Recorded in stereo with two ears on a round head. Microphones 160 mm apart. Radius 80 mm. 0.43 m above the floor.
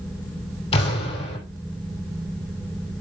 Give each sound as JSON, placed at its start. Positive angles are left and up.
{"t": 0.7, "sound": "an explosion", "side_deg": 35, "distance_m": 4.0}